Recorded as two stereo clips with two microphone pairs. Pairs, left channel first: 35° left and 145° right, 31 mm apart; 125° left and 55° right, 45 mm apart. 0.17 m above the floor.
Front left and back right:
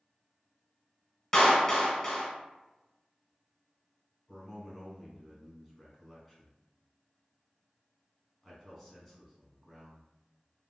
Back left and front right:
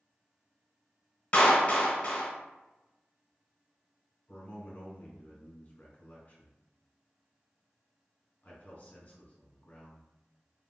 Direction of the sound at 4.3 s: 130° left.